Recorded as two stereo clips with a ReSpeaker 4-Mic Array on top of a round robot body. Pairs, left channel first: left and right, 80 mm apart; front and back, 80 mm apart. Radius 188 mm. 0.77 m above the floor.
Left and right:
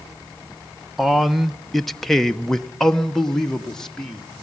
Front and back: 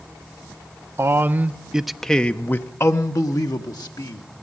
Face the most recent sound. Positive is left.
turn(degrees=10)